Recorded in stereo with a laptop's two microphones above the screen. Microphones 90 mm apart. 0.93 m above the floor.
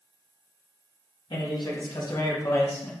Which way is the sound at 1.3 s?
60° left (ahead or behind).